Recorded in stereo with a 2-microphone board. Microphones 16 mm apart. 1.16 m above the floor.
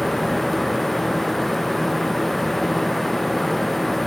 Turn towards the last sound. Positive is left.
No sound to turn to.